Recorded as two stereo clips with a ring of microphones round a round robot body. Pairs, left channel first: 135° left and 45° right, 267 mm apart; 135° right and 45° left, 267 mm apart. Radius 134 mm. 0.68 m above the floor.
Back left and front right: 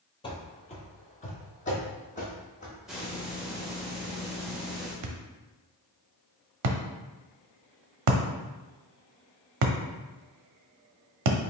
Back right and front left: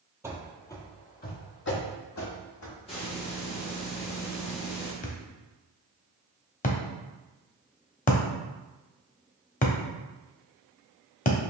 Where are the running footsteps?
105° left, 0.7 m; by 2.8 s 160° right, 1.5 m.